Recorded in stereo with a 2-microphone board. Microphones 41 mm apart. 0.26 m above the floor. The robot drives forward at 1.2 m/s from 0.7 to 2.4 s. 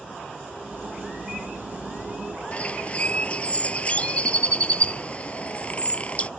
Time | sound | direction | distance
2.5 | a bird | 30° left (ahead or behind) | ?